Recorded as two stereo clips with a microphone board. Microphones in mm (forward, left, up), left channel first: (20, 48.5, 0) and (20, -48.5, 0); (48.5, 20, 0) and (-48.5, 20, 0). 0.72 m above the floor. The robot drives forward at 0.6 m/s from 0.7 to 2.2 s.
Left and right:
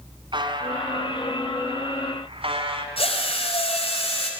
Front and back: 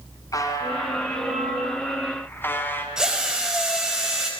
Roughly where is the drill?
Left.